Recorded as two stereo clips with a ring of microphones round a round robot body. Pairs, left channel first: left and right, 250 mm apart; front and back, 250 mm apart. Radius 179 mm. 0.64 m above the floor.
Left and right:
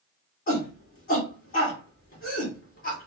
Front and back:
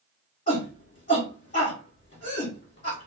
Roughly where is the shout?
Ahead left.